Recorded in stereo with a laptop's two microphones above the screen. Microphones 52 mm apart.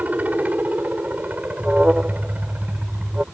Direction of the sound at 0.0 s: 30° right (ahead or behind).